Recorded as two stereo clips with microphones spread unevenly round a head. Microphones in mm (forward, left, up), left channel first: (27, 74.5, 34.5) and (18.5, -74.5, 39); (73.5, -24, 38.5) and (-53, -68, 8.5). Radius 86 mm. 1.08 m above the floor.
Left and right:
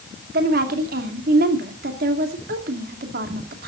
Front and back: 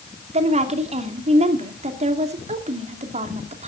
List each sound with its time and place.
0.3 s a woman speaking: 125° right, 2.5 m